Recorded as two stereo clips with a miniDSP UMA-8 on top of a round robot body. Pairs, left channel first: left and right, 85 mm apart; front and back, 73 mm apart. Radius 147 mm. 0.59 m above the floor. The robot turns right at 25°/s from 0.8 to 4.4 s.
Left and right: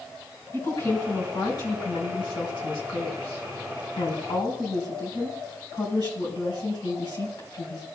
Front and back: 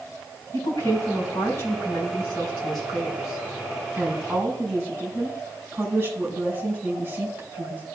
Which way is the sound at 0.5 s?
30° left.